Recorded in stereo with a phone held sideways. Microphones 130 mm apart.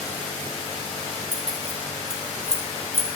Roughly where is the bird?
No bird in this recording.